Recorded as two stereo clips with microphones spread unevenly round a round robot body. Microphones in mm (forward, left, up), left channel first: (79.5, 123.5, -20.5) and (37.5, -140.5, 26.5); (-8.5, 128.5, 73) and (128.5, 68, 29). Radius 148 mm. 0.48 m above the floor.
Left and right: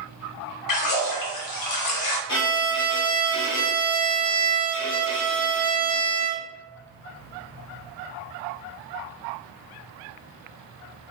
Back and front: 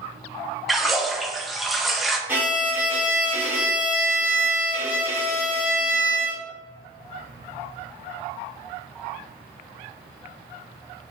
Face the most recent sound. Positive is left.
turn(degrees=55)